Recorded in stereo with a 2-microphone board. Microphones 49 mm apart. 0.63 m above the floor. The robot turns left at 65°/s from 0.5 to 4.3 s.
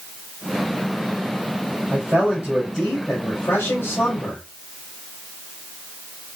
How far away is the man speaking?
About 3.5 m.